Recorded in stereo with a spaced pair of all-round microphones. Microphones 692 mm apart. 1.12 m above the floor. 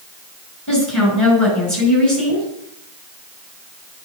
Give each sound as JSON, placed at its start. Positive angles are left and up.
{"t": 0.7, "sound": "a woman speaking", "side_deg": 25, "distance_m": 5.5}